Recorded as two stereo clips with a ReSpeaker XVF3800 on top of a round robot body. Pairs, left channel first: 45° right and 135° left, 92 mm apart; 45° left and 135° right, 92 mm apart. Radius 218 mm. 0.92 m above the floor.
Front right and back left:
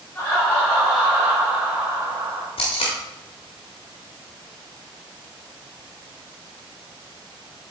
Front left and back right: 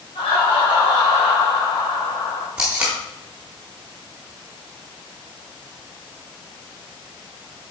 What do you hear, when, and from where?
0.1 s laughter: 25° left, 2 m; by 2.5 s 85° left, 2.5 m
2.6 s tape being pulled: 55° right, 0.8 m